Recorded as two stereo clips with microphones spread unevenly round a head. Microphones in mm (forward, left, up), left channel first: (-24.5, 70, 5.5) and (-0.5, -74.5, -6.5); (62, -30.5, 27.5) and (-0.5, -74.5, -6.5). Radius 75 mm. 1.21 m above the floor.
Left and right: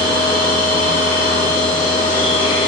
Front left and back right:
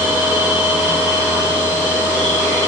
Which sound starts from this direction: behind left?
A machine running, at 0.0 s.